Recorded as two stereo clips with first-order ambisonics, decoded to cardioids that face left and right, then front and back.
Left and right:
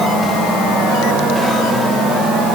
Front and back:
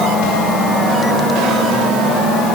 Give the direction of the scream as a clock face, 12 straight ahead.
I don't hear a scream.